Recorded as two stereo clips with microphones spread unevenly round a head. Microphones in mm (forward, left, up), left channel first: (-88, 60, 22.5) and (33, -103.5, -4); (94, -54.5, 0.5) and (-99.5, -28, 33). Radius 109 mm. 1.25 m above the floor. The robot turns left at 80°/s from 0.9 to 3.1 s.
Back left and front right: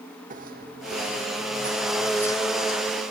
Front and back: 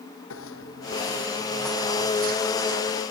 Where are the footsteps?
Straight ahead; by 3.1 s 115° left.